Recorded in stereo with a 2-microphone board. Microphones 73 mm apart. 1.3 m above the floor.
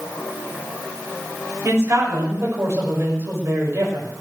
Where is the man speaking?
35° right (ahead or behind), 7 m.